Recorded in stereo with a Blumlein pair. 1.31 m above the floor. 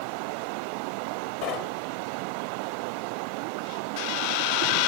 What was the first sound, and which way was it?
Knocking, 35° left.